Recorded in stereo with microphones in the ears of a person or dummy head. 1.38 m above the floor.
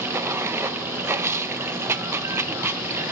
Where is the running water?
10° right (ahead or behind), 0.9 m.